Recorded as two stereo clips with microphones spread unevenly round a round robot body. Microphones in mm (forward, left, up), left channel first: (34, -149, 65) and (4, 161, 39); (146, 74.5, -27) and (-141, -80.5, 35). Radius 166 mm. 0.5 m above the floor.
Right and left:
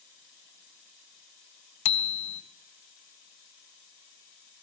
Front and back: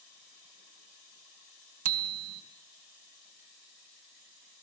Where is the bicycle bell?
100° right, 2.5 m.